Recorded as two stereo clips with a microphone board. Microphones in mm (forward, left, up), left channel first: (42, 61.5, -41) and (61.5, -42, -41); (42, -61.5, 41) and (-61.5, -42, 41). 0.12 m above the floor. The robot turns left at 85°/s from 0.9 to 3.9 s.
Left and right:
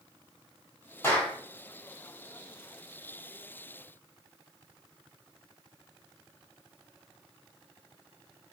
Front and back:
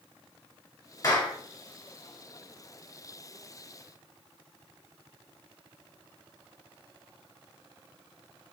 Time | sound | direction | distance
1.0 | a clap | 40° left | 1.6 m